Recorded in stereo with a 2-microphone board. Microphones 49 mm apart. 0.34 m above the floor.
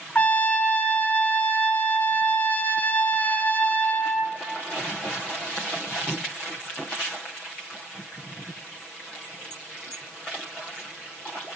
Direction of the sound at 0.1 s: 30° left (ahead or behind).